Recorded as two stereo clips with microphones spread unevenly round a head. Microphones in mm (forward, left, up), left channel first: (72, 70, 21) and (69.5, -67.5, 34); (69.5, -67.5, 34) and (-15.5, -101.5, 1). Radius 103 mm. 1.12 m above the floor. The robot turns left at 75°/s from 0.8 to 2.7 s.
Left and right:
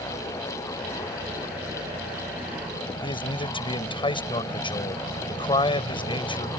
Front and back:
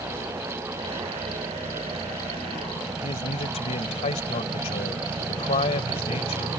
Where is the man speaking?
35° left.